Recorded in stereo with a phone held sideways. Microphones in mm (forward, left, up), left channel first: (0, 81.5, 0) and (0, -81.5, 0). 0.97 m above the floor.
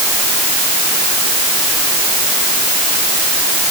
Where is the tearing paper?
I don't hear tearing paper.